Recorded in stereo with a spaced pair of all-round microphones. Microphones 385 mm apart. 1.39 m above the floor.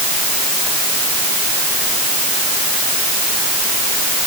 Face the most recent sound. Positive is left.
No sound to turn to.